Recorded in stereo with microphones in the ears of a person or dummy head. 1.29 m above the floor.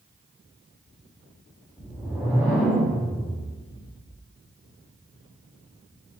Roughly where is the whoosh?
Centre.